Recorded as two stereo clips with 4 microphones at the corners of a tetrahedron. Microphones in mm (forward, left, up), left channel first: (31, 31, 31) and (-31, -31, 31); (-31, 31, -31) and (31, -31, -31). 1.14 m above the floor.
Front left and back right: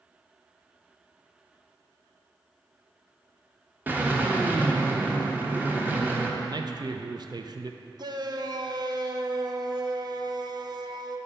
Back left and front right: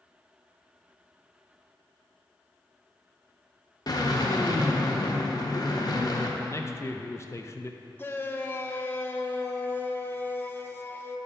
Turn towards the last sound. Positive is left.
turn(degrees=-165)